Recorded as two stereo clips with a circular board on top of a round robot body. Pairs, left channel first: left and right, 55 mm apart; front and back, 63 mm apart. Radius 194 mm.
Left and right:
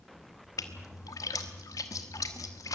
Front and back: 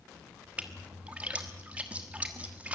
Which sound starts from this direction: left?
A splash, at 0.6 s.